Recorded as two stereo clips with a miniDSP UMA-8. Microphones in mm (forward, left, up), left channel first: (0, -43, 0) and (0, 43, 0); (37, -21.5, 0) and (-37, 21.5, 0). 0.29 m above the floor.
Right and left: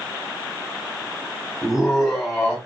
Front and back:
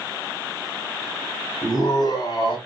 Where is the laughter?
Straight ahead, 3 m.